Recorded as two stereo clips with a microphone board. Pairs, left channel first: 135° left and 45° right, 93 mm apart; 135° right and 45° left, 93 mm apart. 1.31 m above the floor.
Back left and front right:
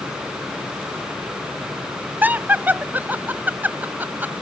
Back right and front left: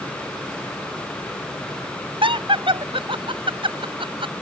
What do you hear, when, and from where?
2.2 s laughter: 25° left